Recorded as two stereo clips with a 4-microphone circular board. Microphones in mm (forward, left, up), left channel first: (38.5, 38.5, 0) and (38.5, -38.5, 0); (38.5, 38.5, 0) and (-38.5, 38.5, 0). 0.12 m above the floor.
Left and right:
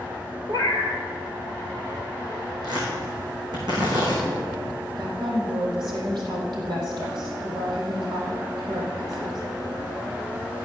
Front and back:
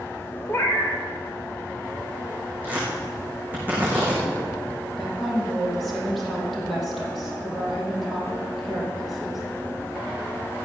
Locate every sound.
0.5 s a cat meowing: 65° right, 1.6 m
2.6 s tearing paper: 110° right, 5.5 m
5.0 s a woman speaking: 85° right, 4 m